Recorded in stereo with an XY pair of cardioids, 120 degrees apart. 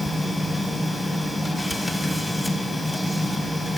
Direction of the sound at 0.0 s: 15° left.